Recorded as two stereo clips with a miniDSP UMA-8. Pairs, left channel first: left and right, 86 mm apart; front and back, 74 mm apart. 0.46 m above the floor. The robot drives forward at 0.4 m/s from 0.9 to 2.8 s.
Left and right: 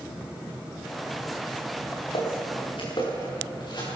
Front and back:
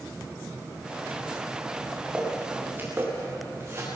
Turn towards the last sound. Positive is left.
turn(degrees=125)